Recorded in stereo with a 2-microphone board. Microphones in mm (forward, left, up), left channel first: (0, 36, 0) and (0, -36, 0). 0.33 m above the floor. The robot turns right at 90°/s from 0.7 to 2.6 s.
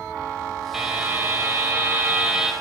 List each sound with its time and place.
0.7 s a buzzer: 170° right, 1.8 m; by 2.5 s 10° right, 1.8 m